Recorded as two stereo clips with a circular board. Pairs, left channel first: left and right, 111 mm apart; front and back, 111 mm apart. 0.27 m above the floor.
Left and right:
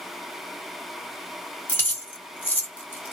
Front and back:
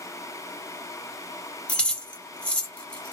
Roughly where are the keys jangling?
Ahead left.